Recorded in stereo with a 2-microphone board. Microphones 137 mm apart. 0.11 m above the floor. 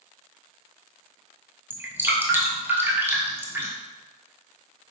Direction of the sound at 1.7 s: 15° right (ahead or behind).